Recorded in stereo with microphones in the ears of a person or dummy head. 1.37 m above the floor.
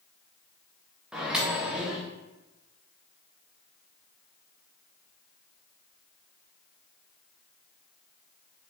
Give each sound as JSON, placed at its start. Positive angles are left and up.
{"t": 1.1, "sound": "a microwave", "side_deg": 0, "distance_m": 0.6}